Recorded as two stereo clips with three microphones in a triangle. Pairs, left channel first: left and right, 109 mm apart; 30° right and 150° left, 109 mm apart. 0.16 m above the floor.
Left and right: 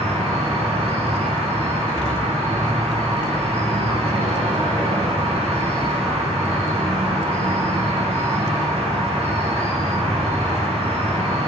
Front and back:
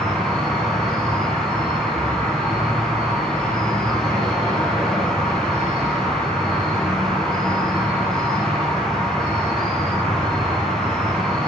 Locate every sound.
0.0 s an insect: 115° right, 2 m